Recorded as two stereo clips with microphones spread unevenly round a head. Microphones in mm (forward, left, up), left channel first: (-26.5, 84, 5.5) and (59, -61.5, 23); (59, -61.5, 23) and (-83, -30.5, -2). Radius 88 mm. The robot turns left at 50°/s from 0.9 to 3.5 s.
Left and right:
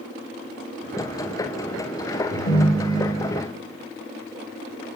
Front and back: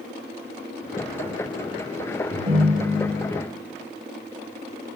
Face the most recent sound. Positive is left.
turn(degrees=90)